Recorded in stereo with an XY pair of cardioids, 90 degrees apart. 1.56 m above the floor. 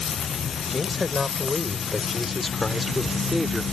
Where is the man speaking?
35° left; by 3.6 s 10° left.